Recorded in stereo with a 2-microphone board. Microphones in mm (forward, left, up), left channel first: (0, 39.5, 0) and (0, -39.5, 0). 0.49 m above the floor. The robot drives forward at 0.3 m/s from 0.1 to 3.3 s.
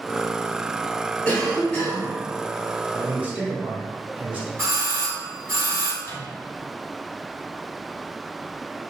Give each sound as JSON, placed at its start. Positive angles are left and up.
{"t": 1.2, "sound": "a cough", "side_deg": 15, "distance_m": 1.7}
{"t": 2.9, "sound": "a man speaking", "side_deg": -20, "distance_m": 1.1}
{"t": 4.6, "sound": "a doorbell", "side_deg": -35, "distance_m": 1.9}
{"t": 6.0, "sound": "a microwave", "side_deg": 35, "distance_m": 1.0}